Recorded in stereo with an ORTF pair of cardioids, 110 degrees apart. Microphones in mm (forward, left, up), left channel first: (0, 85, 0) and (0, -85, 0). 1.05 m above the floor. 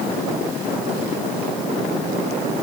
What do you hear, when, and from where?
Only background noise.